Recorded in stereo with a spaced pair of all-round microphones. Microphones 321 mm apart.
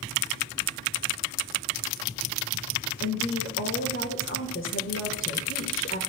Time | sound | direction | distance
3.0 | a woman speaking | 45° left (ahead or behind) | 1.4 m